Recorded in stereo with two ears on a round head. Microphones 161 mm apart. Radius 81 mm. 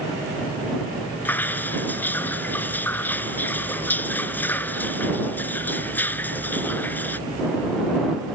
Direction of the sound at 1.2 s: 10° left (ahead or behind).